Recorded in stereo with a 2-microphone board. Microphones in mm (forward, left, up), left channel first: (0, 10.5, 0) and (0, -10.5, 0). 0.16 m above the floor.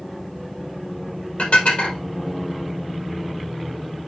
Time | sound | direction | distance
1.4 | dishes clattering | 75° left (ahead or behind) | 3 m